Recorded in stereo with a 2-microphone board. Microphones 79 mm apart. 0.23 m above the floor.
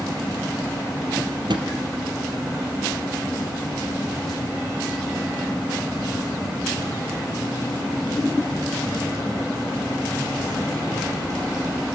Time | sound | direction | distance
1.2 | a drawer | 75° right (ahead or behind) | 3 m